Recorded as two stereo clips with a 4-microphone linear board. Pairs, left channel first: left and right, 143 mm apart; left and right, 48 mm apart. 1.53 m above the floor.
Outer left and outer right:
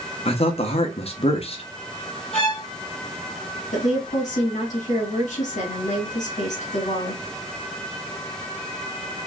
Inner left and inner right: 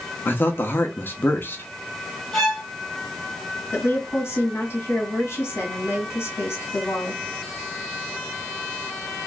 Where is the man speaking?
45° left (ahead or behind), 0.9 m.